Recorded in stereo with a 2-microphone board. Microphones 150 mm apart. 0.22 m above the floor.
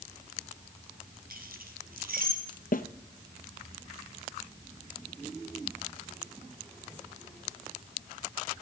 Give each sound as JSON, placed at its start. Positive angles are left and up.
{"t": 1.3, "sound": "keys jangling", "side_deg": -75, "distance_m": 3.0}
{"t": 2.7, "sound": "a snare drum", "side_deg": 70, "distance_m": 0.9}